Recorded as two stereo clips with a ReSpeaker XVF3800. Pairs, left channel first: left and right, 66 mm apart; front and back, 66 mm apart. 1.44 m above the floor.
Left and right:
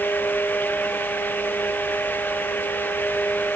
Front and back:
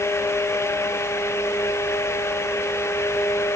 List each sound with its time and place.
Only background noise.